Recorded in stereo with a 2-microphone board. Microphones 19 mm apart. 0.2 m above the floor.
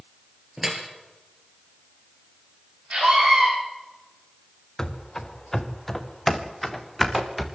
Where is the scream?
70° right (ahead or behind), 7 m.